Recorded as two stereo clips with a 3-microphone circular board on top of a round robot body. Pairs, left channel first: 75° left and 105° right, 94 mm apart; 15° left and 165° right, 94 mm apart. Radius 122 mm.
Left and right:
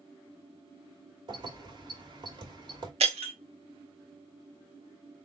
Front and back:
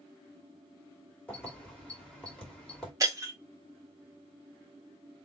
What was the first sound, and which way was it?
Keys jangling, 70° right.